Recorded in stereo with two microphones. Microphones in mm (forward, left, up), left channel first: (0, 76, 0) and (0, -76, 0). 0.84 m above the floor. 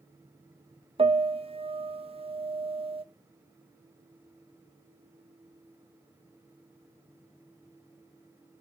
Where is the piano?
40° right (ahead or behind), 0.6 m.